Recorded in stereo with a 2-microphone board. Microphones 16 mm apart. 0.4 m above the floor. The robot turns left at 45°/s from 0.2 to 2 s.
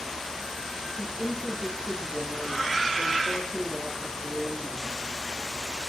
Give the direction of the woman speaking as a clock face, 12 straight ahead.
6 o'clock.